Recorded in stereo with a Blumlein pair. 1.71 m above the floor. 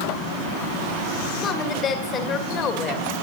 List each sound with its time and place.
1.4 s a woman speaking: 25° left, 1.8 m